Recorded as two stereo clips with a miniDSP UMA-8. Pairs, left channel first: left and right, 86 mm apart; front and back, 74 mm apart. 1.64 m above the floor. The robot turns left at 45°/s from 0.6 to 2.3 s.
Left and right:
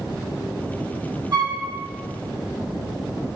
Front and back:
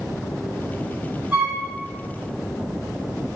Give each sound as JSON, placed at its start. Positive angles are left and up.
{"t": 1.3, "sound": "a flute", "azimuth_deg": -110, "distance_m": 1.2}